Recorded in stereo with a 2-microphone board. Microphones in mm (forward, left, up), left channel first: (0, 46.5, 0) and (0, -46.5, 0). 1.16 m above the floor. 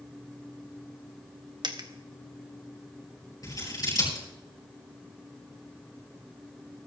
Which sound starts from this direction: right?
A dropped coin, at 1.6 s.